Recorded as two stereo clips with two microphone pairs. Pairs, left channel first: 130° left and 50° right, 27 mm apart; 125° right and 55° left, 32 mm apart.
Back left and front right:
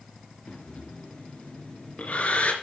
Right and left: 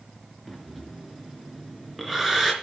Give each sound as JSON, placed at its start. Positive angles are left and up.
{"t": 0.5, "sound": "breathing", "azimuth_deg": 145, "distance_m": 3.5}